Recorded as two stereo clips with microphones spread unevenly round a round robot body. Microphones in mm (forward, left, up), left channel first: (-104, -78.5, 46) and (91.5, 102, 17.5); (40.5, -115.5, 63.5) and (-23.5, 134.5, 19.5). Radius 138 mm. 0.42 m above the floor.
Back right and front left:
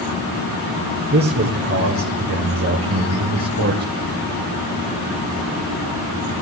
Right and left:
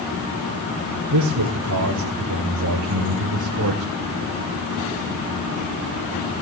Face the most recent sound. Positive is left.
turn(degrees=70)